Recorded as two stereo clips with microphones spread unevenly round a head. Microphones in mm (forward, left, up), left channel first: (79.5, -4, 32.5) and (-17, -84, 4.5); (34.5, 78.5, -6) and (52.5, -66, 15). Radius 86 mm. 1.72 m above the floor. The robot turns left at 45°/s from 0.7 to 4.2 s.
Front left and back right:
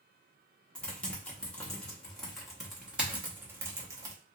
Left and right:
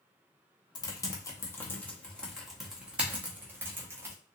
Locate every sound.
0.8 s typing on a keyboard: 65° left, 0.8 m; by 4.2 s 85° right, 0.8 m